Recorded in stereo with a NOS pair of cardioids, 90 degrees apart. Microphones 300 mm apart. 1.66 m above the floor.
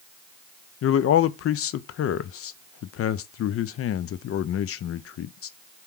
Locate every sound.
0.8 s a man speaking: 50° left, 0.5 m